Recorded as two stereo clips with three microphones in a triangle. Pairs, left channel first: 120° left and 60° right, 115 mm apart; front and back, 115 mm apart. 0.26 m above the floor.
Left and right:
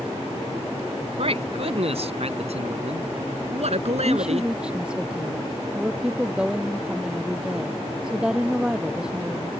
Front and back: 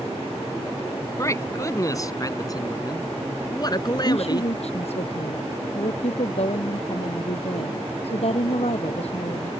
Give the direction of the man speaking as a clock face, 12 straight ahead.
2 o'clock.